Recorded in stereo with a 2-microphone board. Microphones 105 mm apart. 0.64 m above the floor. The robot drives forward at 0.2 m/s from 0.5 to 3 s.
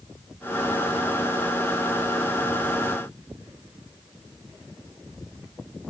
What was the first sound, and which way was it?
Only background noise.